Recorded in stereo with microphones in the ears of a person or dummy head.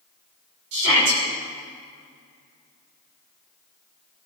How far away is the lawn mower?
I don't hear a lawn mower.